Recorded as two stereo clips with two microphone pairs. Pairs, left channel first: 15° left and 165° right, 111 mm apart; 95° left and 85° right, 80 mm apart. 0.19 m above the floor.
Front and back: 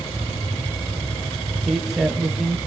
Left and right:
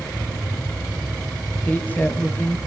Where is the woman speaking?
110° left, 1.5 m.